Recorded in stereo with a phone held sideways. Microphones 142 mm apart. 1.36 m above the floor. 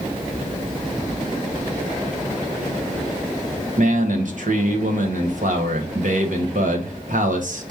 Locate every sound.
3.8 s a man speaking: 65° right (ahead or behind), 1.1 m